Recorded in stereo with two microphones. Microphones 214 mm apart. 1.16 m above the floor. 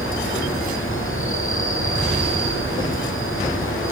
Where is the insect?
75° left (ahead or behind), 5.5 m.